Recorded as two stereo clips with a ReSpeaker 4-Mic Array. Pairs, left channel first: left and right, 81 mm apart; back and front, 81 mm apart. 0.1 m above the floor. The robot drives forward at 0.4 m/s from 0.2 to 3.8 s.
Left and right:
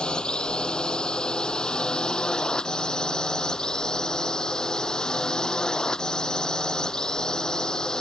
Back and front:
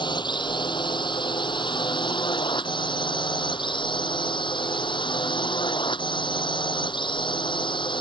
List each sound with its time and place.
0.0 s a drone: 170° left